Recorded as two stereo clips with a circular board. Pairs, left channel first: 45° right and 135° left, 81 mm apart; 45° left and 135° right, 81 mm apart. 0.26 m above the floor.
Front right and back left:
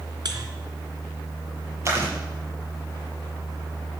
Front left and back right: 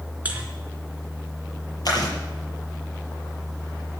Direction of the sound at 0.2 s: 155° left.